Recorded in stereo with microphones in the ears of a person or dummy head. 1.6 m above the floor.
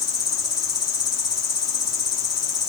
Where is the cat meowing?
No cat meowing in this recording.